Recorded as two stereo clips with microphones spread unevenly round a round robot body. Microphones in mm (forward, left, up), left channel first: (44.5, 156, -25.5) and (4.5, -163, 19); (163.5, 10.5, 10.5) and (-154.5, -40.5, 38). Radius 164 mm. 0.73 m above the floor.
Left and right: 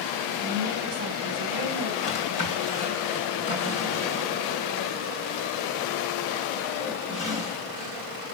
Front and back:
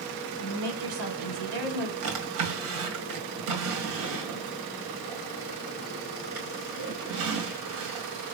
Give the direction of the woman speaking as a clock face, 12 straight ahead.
6 o'clock.